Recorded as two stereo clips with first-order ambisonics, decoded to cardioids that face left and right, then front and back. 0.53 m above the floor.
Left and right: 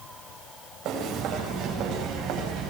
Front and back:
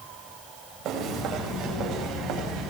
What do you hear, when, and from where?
0.8 s footsteps: 145° right, 9.5 m; by 2.7 s 140° right, 10.5 m